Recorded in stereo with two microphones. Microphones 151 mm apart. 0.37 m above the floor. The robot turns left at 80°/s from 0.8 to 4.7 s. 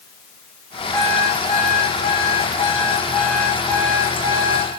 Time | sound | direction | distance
0.9 | an alarm clock | straight behind | 6 m